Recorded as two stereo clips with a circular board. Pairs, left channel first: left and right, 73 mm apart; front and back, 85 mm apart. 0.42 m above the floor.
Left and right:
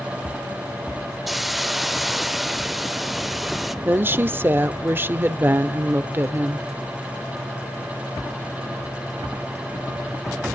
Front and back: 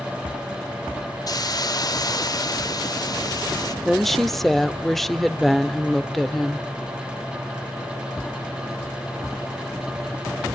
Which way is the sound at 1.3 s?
Straight ahead.